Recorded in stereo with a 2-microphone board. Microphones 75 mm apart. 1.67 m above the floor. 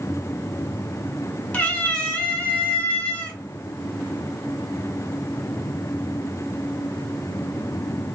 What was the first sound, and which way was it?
A cat meowing, 20° left (ahead or behind).